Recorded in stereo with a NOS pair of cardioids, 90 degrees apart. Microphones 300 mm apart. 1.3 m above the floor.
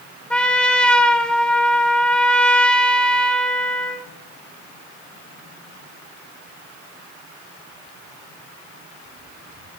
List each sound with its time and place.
0.3 s a trumpet: 5° left, 1.1 m